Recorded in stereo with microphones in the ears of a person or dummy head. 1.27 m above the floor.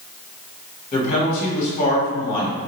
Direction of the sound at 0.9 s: 40° left (ahead or behind).